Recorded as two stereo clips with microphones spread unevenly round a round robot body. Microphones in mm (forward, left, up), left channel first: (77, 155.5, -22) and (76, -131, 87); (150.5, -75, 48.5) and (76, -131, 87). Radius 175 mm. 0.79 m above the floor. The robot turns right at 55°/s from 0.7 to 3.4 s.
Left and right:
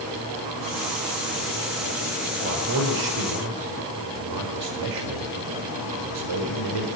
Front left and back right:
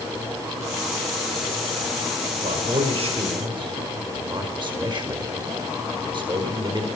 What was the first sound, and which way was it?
A man speaking, 155° right.